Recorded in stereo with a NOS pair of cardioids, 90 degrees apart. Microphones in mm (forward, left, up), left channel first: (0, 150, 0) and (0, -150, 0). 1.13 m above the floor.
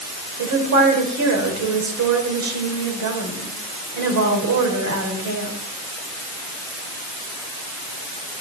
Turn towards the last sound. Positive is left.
turn(degrees=-70)